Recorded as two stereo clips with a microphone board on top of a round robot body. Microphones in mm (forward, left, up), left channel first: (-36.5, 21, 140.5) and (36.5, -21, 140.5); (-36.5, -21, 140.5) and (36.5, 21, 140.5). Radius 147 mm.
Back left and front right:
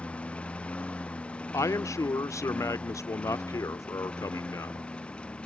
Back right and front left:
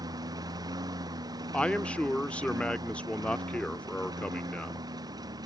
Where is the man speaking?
140° left.